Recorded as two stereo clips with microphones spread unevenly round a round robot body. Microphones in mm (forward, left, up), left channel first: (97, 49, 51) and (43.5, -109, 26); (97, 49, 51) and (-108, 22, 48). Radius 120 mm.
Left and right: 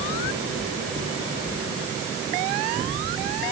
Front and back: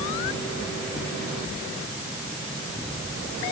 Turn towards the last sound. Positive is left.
No sound to turn to.